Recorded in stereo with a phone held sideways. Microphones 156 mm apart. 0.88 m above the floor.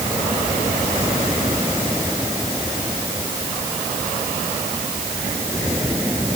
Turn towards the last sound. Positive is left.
No sound to turn to.